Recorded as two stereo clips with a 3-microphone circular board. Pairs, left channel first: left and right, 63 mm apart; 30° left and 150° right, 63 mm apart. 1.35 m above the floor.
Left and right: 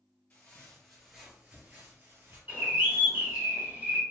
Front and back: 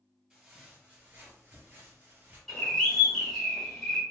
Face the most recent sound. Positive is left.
turn(degrees=-45)